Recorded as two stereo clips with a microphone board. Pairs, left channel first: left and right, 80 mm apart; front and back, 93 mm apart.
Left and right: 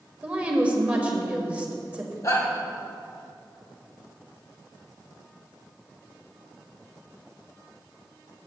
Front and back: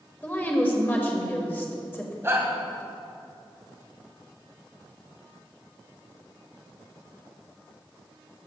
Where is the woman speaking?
40° right, 1.6 m.